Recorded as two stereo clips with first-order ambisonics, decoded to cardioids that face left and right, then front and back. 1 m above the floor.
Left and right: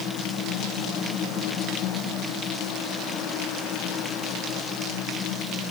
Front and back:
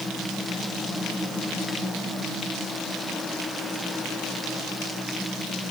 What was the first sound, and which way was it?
Only background noise.